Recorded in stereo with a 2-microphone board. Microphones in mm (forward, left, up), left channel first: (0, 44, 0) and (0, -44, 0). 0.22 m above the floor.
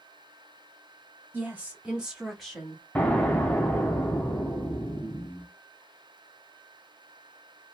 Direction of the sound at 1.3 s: 20° right (ahead or behind).